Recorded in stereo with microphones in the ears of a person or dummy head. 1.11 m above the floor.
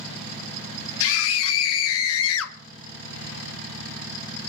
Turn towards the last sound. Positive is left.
turn(degrees=80)